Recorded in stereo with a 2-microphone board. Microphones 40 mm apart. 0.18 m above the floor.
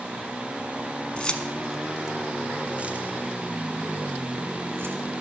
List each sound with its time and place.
1.2 s keys jangling: 20° left (ahead or behind), 1.2 m; by 5.0 s 65° right (ahead or behind), 2.5 m